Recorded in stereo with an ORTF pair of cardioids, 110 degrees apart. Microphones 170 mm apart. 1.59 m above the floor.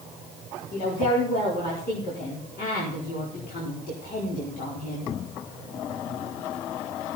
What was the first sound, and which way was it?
A woman speaking, 60° left.